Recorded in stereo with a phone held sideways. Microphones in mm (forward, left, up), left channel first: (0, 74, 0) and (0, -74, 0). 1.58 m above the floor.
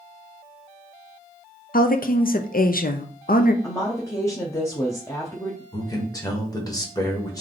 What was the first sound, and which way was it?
A woman speaking, 70° left (ahead or behind).